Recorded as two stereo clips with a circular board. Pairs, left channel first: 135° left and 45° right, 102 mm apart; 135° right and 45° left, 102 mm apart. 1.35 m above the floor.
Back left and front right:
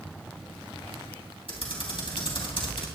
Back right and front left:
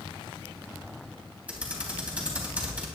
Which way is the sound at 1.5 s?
120° left.